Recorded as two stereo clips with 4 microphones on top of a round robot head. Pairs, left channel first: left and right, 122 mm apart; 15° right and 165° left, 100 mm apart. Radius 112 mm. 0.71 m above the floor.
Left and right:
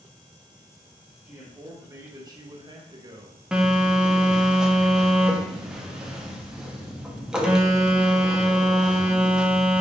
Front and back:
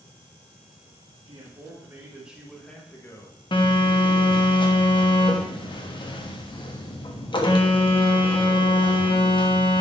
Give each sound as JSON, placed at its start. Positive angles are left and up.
{"t": 1.2, "sound": "a man speaking", "azimuth_deg": -160, "distance_m": 1.7}
{"t": 3.5, "sound": "a phone buzzing", "azimuth_deg": -10, "distance_m": 1.3}